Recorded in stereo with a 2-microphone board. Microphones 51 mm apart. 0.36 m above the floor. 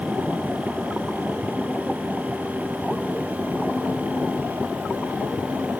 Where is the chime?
No chime in this recording.